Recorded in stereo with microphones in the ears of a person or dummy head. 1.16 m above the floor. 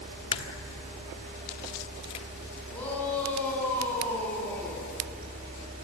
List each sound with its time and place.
0.3 s a crack: 30° left (ahead or behind), 1.3 m
2.7 s a shout: 10° left (ahead or behind), 10 m